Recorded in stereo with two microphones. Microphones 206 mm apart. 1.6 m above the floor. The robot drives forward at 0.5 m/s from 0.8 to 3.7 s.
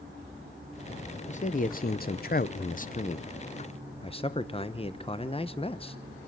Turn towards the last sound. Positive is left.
turn(degrees=25)  # may be behind; listen again after turning